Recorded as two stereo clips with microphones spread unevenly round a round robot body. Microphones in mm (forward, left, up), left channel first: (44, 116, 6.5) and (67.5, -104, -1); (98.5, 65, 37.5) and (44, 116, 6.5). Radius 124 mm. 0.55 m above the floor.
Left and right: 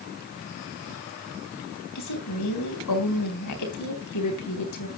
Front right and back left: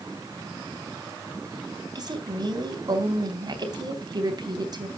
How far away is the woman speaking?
About 3.5 m.